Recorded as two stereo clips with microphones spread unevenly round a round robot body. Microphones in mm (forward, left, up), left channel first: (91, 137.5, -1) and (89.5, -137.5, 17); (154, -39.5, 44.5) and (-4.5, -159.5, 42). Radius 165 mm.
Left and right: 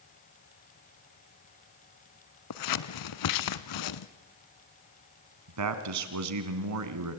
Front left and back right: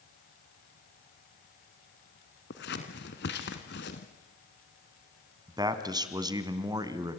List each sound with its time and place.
2.5 s scissors: 95° left, 0.9 m
5.5 s a man speaking: 75° right, 2.5 m